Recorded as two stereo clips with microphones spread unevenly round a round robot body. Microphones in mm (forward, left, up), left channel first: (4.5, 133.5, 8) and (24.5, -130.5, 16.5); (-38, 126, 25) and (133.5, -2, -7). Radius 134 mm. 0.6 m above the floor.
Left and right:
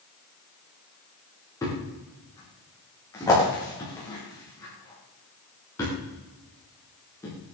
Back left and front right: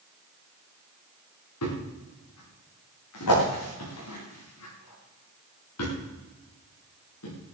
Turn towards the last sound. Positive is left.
turn(degrees=175)